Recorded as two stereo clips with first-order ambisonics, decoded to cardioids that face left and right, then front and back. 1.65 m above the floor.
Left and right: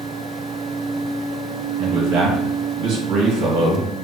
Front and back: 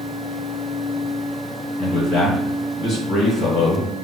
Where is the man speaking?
70° right, 1.6 m.